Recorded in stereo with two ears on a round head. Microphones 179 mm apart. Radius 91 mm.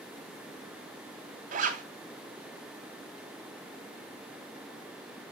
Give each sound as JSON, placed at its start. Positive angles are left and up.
{"t": 1.5, "sound": "a zipper", "side_deg": -40, "distance_m": 1.9}